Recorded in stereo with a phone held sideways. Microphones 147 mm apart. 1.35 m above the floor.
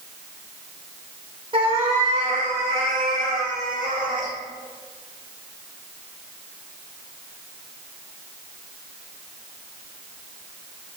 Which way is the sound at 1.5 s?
35° right (ahead or behind).